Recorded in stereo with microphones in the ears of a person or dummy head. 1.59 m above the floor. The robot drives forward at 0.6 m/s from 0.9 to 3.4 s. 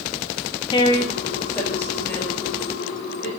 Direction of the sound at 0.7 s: 30° left (ahead or behind).